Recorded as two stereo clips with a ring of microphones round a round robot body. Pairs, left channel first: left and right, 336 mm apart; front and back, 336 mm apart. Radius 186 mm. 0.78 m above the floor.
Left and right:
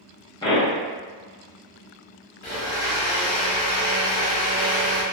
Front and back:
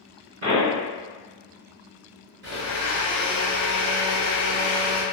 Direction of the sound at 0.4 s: 160° left.